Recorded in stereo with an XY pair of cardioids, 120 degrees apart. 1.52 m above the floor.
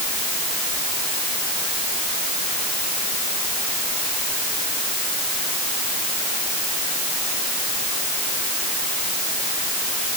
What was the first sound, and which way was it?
Only background noise.